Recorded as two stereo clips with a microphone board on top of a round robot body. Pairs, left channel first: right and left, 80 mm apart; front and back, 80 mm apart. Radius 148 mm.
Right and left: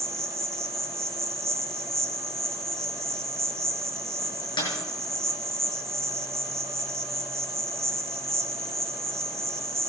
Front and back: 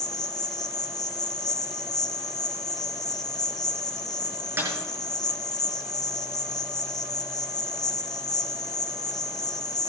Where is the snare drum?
120° right, 6 m.